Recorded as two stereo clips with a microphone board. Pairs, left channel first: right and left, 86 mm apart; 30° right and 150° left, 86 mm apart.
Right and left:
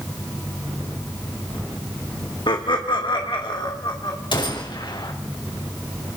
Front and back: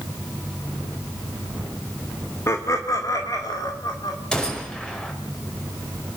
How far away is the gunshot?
About 5 m.